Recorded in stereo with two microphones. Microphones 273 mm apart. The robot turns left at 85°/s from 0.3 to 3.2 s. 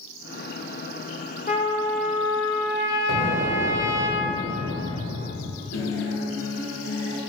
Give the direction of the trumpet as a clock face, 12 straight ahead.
11 o'clock.